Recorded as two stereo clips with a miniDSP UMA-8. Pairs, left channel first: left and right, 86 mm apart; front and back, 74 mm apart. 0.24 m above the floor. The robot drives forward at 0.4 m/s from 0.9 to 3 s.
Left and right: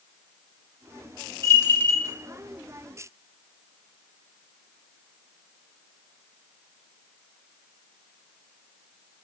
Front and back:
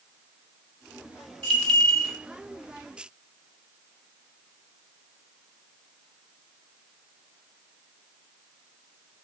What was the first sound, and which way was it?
A bell, 60° left.